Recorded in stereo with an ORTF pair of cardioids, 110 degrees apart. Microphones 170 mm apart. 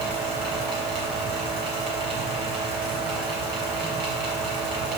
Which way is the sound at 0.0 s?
65° right.